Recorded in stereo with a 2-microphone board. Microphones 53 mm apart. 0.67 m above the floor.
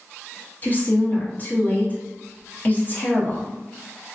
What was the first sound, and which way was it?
A woman speaking, 35° left (ahead or behind).